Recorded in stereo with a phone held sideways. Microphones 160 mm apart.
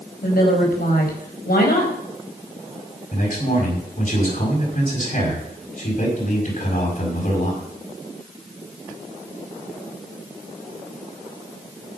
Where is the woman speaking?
70° left (ahead or behind), 4.5 m.